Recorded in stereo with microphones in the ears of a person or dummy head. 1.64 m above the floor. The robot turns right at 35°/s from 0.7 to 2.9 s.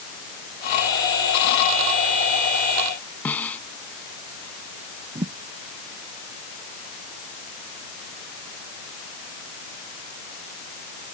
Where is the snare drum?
10° left (ahead or behind).